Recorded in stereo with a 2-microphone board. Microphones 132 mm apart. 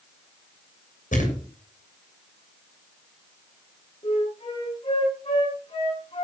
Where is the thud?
80° left, 7 m.